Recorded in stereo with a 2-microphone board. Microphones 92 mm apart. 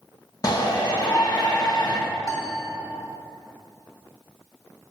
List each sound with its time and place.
0.4 s a shout: 45° left (ahead or behind), 1.4 m
2.2 s a piano: 35° left (ahead or behind), 1.7 m